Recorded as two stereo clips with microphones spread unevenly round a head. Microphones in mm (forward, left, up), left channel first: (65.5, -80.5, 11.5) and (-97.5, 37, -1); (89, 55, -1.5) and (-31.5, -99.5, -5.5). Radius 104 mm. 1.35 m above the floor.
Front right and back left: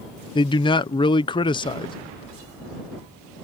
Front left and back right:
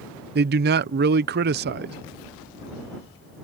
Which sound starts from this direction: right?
A man speaking, at 0.3 s.